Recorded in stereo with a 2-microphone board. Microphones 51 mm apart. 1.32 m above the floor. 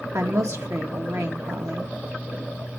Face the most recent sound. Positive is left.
turn(degrees=-75)  # may be behind; listen again after turning